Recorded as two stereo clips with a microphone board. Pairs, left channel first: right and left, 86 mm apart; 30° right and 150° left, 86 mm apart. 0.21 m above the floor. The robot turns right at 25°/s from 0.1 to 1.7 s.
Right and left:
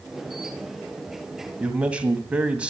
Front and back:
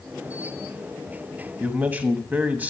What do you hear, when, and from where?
1.6 s a man speaking: 130° left, 1.0 m